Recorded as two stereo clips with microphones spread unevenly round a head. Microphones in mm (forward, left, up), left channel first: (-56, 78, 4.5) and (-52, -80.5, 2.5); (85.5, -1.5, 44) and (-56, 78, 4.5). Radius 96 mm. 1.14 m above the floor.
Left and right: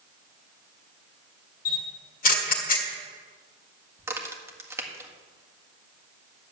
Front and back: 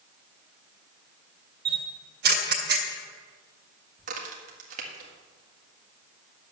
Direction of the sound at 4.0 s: 160° right.